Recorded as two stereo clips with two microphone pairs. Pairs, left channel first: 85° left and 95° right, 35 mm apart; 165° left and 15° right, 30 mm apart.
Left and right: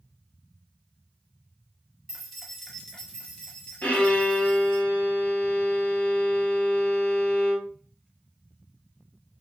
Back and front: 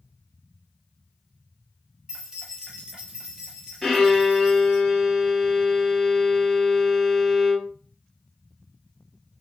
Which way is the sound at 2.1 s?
35° right.